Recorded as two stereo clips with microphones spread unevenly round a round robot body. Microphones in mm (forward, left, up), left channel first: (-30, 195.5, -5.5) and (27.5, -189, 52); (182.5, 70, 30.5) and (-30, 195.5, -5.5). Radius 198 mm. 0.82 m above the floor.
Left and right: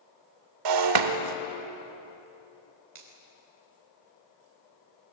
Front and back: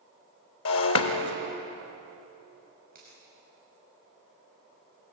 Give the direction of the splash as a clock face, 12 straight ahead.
I don't hear a splash.